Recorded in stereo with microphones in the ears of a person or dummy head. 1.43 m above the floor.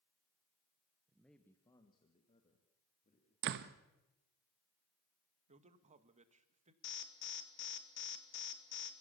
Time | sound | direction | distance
1.1 | a man speaking | 5° right (ahead or behind) | 1.0 m
3.4 | a door slam | 60° right (ahead or behind) | 1.0 m
5.5 | a man speaking | 40° right (ahead or behind) | 1.4 m
6.8 | an alarm | 60° left (ahead or behind) | 1.7 m